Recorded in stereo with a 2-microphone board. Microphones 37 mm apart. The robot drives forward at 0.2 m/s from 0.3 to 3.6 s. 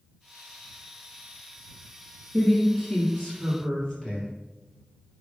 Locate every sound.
2.3 s a woman speaking: 20° left (ahead or behind), 1.6 m; by 4.3 s 15° left (ahead or behind), 1.8 m